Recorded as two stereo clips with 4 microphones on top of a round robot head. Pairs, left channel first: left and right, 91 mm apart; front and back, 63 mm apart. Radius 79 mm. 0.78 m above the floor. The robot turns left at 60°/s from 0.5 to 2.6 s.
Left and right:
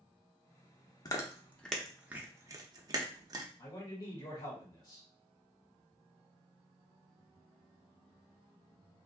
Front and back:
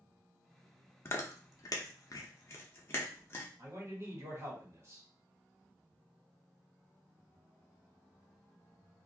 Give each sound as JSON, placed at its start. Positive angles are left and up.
{"t": 1.1, "sound": "chewing", "azimuth_deg": 45, "distance_m": 0.7}
{"t": 3.6, "sound": "a man speaking", "azimuth_deg": 135, "distance_m": 1.6}